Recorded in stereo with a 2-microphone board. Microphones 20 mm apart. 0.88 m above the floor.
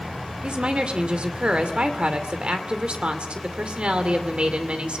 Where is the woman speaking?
65° right (ahead or behind), 2.5 m.